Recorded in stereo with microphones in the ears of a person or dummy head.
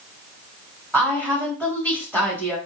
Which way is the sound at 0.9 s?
5° right (ahead or behind).